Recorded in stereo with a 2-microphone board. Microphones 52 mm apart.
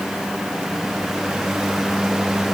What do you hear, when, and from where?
Only background noise.